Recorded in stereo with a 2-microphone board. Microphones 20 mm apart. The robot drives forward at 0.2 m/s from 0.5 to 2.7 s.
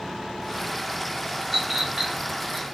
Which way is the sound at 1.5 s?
Centre (ahead or behind).